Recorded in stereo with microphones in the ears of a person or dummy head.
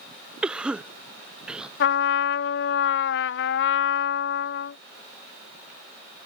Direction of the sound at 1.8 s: 70° left (ahead or behind).